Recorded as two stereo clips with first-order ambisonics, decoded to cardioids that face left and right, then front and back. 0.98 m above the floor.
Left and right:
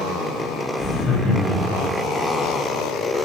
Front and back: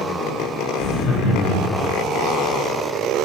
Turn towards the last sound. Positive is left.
turn(degrees=50)